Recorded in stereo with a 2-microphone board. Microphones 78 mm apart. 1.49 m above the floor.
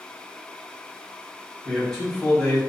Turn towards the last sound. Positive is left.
turn(degrees=5)  # may be behind; listen again after turning